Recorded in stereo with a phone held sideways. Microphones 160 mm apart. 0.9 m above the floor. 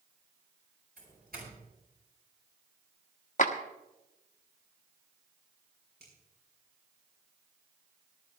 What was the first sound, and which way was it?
A doorbell, 70° right (ahead or behind).